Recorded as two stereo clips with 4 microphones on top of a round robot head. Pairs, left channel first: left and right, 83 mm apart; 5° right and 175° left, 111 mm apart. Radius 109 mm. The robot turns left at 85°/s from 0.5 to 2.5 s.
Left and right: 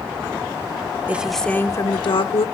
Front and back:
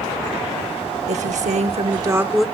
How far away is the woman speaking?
About 0.9 m.